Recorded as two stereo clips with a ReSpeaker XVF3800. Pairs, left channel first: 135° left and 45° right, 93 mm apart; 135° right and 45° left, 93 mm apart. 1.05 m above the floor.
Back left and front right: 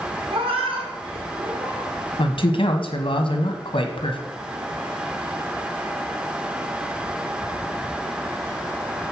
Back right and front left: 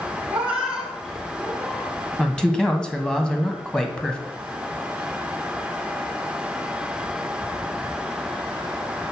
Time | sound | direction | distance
0.3 | a cat meowing | 30° right | 1.2 m
2.2 | a man speaking | 145° left | 1.2 m